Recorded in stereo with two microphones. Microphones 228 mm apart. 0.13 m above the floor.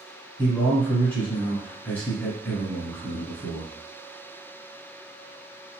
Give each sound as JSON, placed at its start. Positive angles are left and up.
{"t": 0.4, "sound": "a man speaking", "side_deg": 10, "distance_m": 1.4}